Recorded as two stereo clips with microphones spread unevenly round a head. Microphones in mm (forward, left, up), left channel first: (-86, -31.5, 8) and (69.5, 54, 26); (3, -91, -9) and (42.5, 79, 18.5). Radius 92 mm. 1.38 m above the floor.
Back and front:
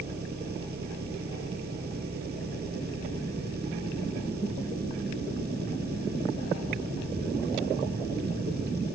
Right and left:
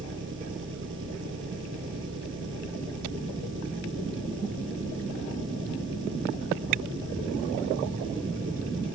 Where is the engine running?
65° left.